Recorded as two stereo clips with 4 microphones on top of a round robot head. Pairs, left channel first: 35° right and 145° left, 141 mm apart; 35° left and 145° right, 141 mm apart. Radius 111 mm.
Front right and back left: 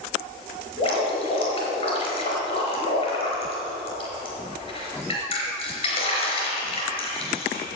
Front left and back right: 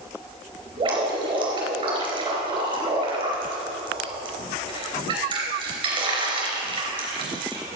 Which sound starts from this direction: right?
Dripping, at 0.8 s.